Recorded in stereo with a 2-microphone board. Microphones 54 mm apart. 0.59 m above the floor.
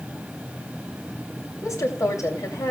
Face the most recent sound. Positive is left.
turn(degrees=75)  # may be behind; listen again after turning